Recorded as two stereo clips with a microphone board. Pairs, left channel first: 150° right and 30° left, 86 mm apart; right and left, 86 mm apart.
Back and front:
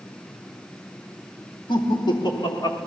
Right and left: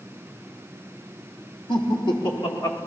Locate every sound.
1.7 s laughter: 120° right, 3 m; by 2.8 s 110° right, 4.5 m